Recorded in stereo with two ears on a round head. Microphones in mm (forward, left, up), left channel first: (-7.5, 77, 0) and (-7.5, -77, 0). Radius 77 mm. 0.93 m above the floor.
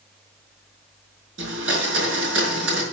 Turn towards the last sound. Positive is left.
turn(degrees=-85)